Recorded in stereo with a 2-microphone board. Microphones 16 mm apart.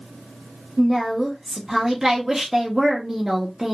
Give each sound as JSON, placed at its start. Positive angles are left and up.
{"t": 0.8, "sound": "a woman speaking", "side_deg": -20, "distance_m": 1.0}